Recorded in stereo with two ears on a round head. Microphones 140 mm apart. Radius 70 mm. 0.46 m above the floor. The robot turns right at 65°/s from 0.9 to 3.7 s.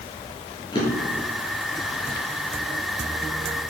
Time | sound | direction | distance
0.7 | a drawer | 30° left (ahead or behind) | 5 m